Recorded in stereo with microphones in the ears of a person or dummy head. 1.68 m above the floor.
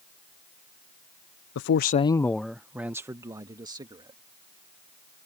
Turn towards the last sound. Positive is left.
turn(degrees=-30)  # may be behind; listen again after turning